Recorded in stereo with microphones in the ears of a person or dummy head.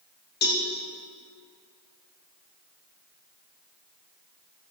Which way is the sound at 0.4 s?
55° left (ahead or behind).